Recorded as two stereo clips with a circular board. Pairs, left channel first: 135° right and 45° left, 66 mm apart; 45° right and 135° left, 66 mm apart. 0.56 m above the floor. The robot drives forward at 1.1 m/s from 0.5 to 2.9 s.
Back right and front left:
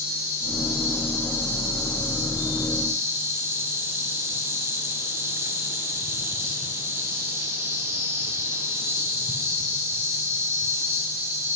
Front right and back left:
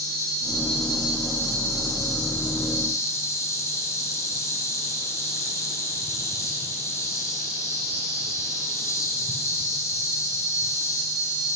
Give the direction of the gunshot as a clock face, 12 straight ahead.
I don't hear a gunshot.